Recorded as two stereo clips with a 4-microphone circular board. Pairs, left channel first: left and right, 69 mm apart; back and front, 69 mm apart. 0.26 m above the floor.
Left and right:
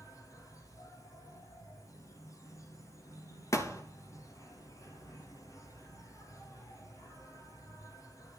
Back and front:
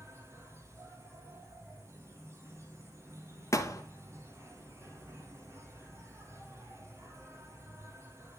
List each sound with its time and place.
0.0 s an insect: 50° left, 3 m
3.5 s a thud: 130° left, 1.9 m